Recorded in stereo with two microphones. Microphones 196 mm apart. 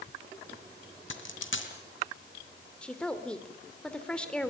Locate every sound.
1.1 s a dropped coin: 75° left (ahead or behind), 3 m
2.8 s a woman speaking: 5° left (ahead or behind), 2.5 m